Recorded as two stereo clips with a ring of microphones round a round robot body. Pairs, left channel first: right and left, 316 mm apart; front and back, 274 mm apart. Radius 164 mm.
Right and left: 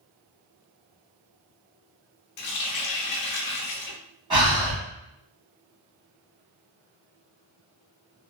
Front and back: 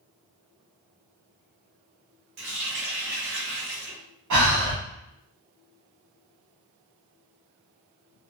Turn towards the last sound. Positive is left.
turn(degrees=165)